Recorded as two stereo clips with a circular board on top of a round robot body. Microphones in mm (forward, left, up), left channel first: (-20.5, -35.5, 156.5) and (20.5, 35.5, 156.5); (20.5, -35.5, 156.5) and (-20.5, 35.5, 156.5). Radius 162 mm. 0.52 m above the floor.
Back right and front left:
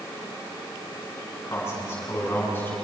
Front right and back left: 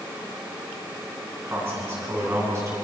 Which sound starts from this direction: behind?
A man speaking, at 1.5 s.